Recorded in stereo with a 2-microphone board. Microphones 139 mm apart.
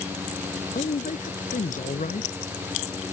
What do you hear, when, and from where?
0.8 s a man speaking: 75° left (ahead or behind)